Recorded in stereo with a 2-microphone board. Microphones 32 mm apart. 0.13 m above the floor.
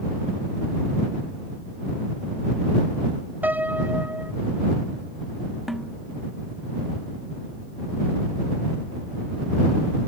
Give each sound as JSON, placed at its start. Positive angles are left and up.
{"t": 3.4, "sound": "a piano", "side_deg": -60}
{"t": 5.7, "sound": "a snare drum", "side_deg": 0}